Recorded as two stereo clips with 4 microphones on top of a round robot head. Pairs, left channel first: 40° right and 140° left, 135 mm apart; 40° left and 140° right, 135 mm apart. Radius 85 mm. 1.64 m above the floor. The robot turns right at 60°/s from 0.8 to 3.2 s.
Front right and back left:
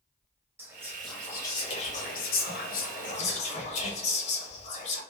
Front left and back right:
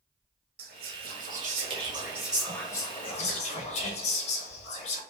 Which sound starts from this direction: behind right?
Whispering, at 0.6 s.